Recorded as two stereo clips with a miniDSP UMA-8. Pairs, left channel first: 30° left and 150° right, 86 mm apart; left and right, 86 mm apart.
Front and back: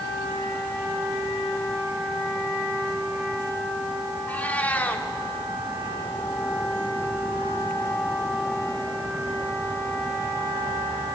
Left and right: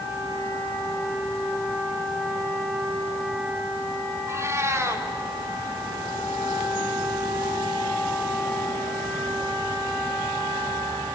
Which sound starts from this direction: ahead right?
A cat meowing, at 4.3 s.